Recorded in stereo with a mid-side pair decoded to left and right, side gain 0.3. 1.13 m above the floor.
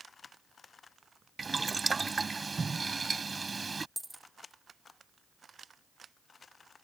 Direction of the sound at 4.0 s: 10° right.